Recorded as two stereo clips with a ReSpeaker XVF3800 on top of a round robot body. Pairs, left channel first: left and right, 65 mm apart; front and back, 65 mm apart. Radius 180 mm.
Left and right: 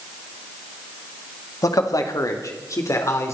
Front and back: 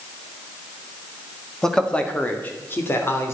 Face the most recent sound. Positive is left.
turn(degrees=50)